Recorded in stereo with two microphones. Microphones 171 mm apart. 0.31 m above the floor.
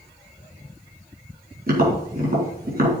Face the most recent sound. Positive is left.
turn(degrees=-60)  # may be behind; listen again after turning